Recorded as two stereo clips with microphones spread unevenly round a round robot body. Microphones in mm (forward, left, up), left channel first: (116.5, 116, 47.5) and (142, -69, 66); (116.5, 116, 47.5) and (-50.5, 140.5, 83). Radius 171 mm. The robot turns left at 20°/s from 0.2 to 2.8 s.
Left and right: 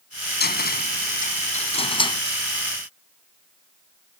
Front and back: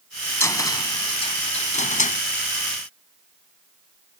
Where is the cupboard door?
65° left; by 2.2 s 30° left.